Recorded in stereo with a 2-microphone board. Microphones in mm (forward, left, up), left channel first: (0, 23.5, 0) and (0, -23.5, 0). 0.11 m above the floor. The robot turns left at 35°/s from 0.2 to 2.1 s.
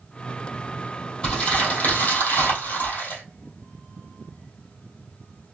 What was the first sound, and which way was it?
Crumpling, 155° left.